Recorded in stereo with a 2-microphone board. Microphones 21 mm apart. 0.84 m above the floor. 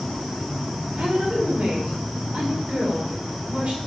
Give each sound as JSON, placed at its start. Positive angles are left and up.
{"t": 1.0, "sound": "a woman speaking", "side_deg": -80, "distance_m": 2.5}